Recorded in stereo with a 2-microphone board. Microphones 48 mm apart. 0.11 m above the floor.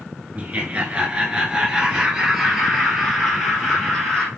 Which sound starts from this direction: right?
Laughter, at 0.3 s.